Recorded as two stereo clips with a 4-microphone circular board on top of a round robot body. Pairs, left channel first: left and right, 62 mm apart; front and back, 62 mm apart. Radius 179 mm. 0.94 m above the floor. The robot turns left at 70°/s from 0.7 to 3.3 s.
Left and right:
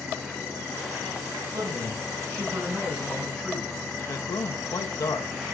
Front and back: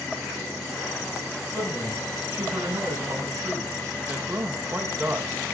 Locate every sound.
1.5 s a man speaking: 65° right, 6.5 m; by 3.8 s 170° left, 6.5 m
4.0 s a man speaking: 120° left, 1.1 m